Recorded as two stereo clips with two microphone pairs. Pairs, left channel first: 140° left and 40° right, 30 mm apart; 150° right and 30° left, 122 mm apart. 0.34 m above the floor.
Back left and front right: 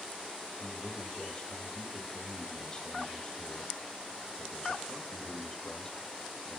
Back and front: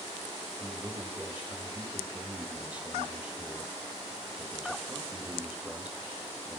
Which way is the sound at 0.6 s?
105° left.